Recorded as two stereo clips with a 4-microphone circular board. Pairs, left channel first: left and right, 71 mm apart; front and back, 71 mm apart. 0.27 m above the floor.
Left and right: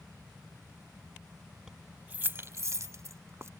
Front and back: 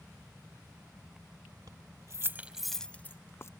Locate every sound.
1.7 s keys jangling: 170° right; by 3.5 s 45° right